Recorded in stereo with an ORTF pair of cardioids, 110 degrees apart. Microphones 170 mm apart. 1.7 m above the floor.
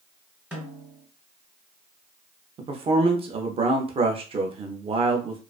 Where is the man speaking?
35° right, 0.5 m.